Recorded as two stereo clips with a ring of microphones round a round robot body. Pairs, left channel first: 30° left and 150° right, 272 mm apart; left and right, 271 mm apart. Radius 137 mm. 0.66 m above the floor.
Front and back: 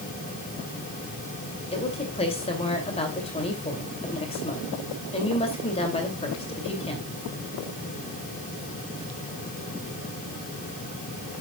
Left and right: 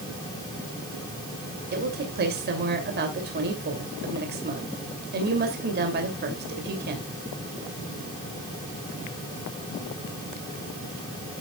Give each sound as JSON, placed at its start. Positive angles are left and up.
{"t": 1.7, "sound": "a woman speaking", "azimuth_deg": -40, "distance_m": 2.5}